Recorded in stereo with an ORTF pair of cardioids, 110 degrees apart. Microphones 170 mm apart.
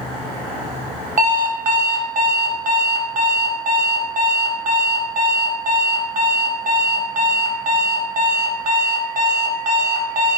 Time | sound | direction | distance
1.2 | an alarm clock | 45° right | 1.0 m